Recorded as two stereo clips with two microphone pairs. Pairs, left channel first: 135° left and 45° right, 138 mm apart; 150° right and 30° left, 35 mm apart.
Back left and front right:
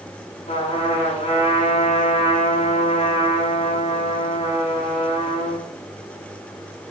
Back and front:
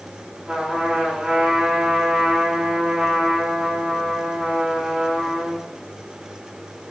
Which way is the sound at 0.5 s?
100° left.